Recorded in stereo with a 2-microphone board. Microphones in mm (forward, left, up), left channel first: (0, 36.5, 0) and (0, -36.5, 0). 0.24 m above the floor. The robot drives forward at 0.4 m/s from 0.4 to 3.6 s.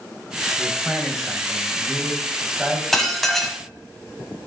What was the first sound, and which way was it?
A man speaking, 5° right (ahead or behind).